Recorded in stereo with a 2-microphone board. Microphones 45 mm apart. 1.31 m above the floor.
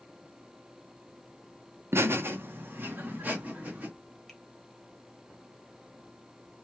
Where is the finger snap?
5° left (ahead or behind), 1.1 m.